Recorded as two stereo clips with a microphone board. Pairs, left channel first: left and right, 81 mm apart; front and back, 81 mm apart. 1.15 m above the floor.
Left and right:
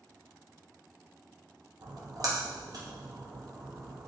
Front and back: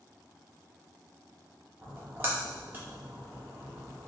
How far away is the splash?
About 0.7 m.